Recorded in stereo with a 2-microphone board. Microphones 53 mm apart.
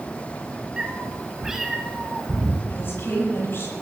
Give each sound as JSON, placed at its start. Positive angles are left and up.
{"t": 0.8, "sound": "a cat meowing", "side_deg": -15, "distance_m": 2.5}
{"t": 2.7, "sound": "a woman speaking", "side_deg": 50, "distance_m": 10.0}